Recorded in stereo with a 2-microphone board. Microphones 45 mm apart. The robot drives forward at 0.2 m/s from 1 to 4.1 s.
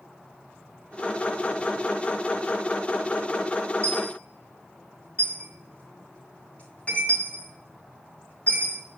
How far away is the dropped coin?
About 4.5 m.